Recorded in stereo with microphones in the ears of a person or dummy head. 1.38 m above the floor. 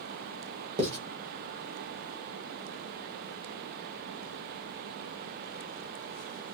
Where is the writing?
35° right (ahead or behind), 1.1 m.